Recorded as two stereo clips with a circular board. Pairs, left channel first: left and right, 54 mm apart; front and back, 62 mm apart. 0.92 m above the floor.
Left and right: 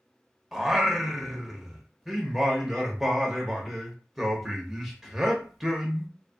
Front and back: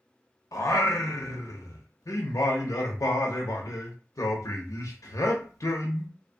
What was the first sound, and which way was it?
Singing, straight ahead.